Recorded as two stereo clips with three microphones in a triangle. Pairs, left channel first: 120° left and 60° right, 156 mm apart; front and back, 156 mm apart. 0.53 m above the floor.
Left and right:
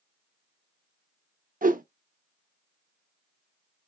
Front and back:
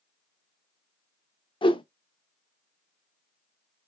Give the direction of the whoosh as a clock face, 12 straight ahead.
2 o'clock.